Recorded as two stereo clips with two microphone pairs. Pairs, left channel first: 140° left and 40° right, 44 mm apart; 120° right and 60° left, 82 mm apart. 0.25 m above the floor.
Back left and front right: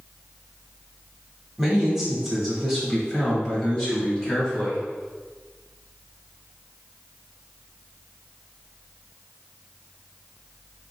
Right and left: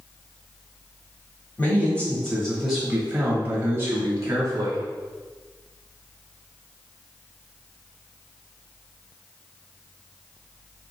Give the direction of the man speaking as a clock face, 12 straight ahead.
4 o'clock.